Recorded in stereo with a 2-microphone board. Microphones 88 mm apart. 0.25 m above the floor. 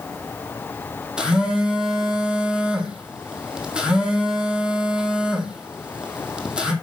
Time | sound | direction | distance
1.2 | a phone buzzing | 10° right (ahead or behind) | 1.6 m